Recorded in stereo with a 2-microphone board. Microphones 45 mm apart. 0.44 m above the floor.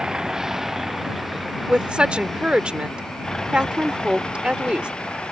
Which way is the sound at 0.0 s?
20° right (ahead or behind).